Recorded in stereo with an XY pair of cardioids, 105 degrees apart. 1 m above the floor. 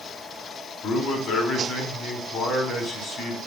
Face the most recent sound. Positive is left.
turn(degrees=65)